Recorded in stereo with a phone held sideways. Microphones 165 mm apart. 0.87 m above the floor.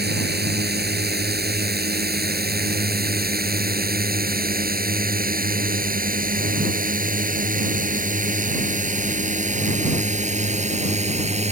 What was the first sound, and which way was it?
A drone, 80° right.